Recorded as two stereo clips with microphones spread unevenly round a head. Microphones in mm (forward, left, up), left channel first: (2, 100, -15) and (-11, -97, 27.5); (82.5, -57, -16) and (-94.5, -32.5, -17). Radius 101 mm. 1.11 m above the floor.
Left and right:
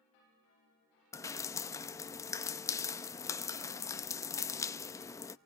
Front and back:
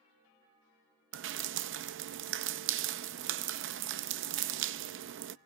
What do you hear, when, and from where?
1.1 s dripping: 170° left, 0.5 m